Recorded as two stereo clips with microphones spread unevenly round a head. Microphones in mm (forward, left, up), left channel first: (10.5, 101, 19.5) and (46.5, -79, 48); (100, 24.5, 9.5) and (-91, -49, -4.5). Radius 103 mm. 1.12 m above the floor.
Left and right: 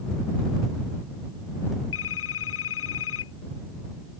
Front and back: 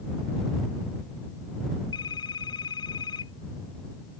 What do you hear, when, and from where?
1.9 s a phone ringing: 90° left